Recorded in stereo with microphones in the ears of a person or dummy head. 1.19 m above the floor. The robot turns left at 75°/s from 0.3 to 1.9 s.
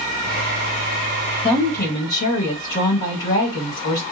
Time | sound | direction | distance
1.4 | a woman speaking | 155° left | 1.7 m